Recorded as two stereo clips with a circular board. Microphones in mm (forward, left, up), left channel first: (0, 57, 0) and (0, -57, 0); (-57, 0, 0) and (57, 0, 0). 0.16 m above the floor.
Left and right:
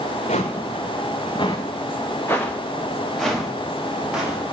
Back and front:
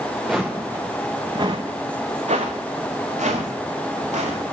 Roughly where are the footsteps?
Left.